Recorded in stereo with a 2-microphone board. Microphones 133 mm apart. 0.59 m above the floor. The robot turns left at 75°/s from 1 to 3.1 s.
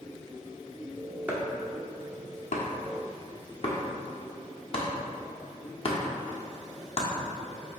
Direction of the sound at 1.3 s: 15° right (ahead or behind).